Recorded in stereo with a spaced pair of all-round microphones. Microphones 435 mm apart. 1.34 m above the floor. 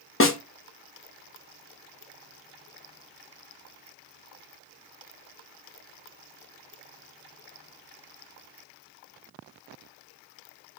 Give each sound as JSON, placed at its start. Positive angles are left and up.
{"t": 0.2, "sound": "a snare drum", "side_deg": 30, "distance_m": 0.5}